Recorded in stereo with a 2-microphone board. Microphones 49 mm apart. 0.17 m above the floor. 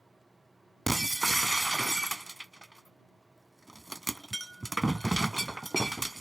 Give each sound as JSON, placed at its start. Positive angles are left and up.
{"t": 0.9, "sound": "breaking glass", "side_deg": 0}